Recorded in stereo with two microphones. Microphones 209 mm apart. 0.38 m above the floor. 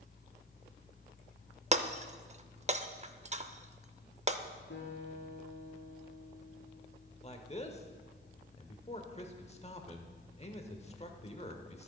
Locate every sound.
1.7 s breaking glass: 35° right (ahead or behind), 0.5 m
4.7 s a guitar: 70° left (ahead or behind), 2.5 m
7.2 s a man speaking: 30° left (ahead or behind), 0.9 m